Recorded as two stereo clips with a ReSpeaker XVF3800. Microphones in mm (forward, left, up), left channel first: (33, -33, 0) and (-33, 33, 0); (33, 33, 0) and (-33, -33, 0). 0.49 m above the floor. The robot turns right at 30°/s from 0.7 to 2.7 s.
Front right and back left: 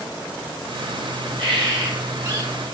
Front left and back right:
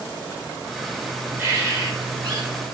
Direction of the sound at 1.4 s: 160° left.